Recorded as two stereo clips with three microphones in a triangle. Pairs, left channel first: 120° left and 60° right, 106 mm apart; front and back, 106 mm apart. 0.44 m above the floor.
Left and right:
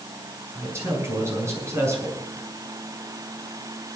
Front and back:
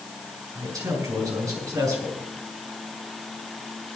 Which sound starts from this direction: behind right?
A man speaking, at 0.6 s.